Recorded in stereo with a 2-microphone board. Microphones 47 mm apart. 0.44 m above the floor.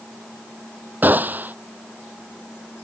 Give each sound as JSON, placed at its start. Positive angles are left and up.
{"t": 1.0, "sound": "a gunshot", "side_deg": -40}